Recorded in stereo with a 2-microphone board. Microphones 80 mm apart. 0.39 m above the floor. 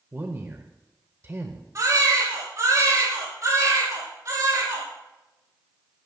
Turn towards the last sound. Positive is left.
turn(degrees=-45)  # may be behind; listen again after turning